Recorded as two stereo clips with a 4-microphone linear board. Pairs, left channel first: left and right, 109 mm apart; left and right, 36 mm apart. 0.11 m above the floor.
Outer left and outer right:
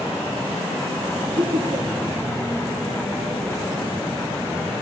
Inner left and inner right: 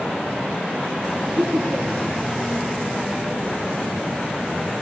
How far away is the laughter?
About 2.5 m.